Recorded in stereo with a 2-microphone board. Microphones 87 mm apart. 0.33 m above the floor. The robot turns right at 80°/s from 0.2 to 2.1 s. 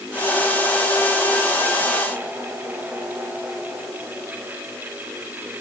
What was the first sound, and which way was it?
Only background noise.